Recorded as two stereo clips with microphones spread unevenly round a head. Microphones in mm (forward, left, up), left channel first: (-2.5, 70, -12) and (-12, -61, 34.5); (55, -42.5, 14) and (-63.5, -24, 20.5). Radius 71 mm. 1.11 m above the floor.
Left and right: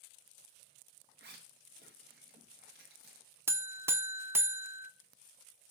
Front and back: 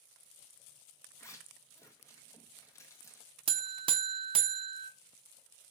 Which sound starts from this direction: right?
A zipper, at 1.2 s.